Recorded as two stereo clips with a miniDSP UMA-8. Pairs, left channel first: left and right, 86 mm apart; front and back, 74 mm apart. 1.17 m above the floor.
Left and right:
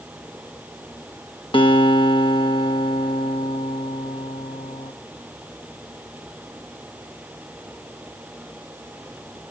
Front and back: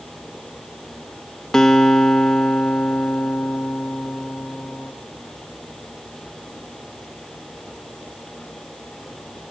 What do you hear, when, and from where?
1.5 s a guitar: 85° left, 1.2 m